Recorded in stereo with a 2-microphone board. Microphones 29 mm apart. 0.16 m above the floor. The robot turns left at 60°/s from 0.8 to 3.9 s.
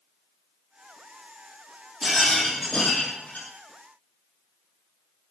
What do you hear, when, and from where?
2.0 s a rattle: 170° right, 4.5 m; by 3.5 s 105° left, 4.5 m